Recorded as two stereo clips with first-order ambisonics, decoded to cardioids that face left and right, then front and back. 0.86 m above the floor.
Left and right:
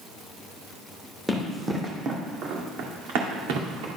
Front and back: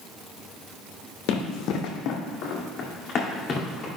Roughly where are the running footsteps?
Ahead.